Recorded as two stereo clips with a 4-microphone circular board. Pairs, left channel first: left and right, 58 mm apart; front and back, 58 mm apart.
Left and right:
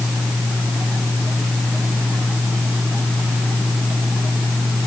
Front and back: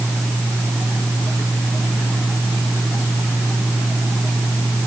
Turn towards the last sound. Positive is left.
No sound to turn to.